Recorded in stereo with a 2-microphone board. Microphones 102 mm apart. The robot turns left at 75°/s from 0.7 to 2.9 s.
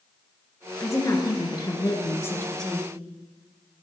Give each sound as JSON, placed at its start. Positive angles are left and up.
{"t": 0.8, "sound": "a woman speaking", "azimuth_deg": 145, "distance_m": 1.6}